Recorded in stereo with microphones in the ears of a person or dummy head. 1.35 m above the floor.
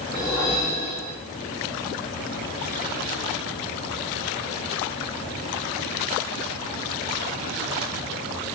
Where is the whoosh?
Centre (ahead or behind), 2 m.